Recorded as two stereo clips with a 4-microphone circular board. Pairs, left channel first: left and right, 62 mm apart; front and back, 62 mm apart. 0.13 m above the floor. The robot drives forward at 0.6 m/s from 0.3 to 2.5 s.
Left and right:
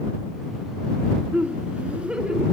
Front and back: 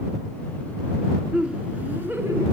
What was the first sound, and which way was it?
Laughter, 115° right.